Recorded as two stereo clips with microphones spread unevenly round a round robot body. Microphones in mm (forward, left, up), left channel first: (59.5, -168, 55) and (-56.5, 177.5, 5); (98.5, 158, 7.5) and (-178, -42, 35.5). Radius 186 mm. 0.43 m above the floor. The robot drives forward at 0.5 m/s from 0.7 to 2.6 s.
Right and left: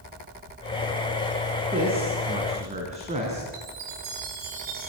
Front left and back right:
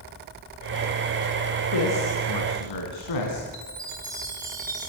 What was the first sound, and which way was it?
A man speaking, 35° left.